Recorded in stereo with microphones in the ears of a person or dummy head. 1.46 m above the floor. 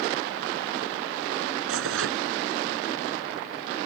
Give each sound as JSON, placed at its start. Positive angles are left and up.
{"t": 1.7, "sound": "tearing paper", "side_deg": -80}